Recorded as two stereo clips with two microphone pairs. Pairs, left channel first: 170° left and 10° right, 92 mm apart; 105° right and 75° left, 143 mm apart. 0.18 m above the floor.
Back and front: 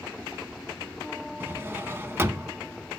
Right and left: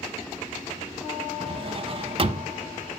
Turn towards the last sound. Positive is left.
turn(degrees=45)